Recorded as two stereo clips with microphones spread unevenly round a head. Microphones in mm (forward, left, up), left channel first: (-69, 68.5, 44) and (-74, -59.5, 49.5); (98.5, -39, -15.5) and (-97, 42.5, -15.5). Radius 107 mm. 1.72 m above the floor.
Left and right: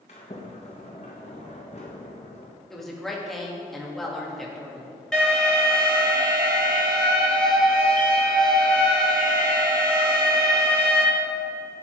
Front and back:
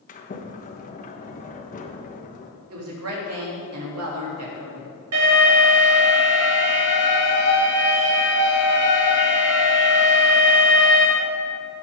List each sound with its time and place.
0.1 s a sliding door: 25° left, 1.4 m
2.7 s a woman speaking: 175° left, 3 m
5.1 s an alarm: 175° left, 4.5 m